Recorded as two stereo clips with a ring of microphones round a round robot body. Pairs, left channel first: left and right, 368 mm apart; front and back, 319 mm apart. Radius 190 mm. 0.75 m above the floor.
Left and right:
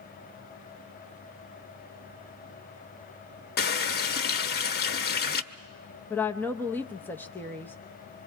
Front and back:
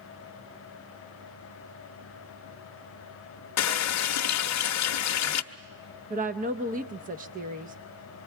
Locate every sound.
3.6 s a running tap: 30° left, 0.8 m
6.1 s a woman speaking: 170° left, 0.7 m